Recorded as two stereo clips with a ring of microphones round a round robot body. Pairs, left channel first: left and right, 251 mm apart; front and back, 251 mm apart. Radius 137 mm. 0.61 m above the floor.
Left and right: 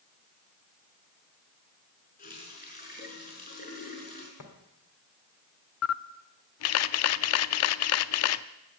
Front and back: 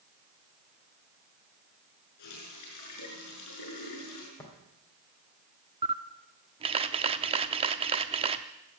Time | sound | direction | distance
2.2 | a running tap | 35° left | 5.5 m
4.4 | tapping | 80° left | 3 m
5.8 | a camera shutter | 110° left | 0.5 m